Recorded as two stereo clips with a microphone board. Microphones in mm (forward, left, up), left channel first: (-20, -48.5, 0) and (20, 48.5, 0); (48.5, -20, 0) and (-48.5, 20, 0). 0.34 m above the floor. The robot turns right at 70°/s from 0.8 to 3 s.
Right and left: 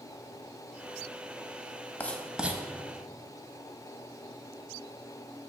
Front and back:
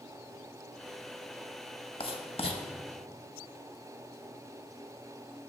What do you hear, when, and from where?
2.0 s writing: 40° right, 0.8 m; by 2.6 s straight ahead, 0.8 m